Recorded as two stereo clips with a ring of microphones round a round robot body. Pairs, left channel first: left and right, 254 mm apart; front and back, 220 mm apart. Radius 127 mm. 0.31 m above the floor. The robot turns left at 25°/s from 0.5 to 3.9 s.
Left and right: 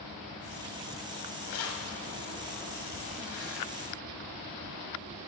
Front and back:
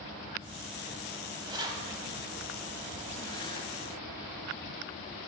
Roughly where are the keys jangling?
Behind left.